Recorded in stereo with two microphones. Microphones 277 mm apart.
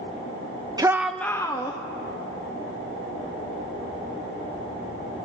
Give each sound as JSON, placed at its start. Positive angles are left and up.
{"t": 0.8, "sound": "a shout", "side_deg": -15, "distance_m": 0.7}